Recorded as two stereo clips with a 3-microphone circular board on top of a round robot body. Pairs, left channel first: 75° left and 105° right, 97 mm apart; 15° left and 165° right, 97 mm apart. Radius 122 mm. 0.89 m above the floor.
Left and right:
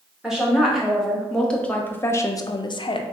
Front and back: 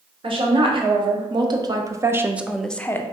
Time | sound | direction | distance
0.2 | a woman speaking | 170° left | 1.3 m